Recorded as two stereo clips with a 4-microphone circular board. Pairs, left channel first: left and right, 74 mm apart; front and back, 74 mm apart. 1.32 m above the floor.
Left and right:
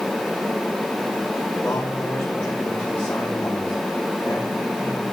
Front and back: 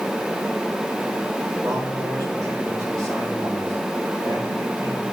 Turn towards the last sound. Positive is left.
turn(degrees=155)